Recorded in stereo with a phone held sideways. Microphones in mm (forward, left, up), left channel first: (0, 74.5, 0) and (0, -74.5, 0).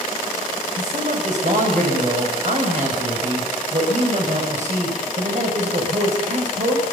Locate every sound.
0.8 s a man speaking: 55° right (ahead or behind), 6 m